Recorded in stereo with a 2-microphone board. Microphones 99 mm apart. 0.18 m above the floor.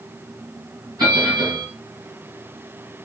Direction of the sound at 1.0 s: 40° right (ahead or behind).